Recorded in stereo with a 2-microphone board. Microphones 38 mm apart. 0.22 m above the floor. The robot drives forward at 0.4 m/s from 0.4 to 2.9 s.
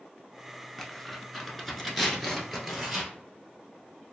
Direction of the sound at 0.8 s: 10° left (ahead or behind).